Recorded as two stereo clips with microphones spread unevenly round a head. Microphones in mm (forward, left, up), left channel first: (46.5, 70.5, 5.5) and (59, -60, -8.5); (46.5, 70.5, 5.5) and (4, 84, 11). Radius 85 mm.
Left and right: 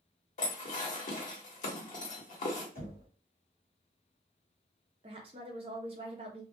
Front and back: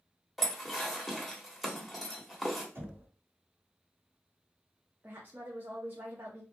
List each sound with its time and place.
0.4 s dishes clattering: 75° left, 1.4 m
2.8 s knocking: 135° left, 1.7 m
5.0 s a woman speaking: 130° right, 0.5 m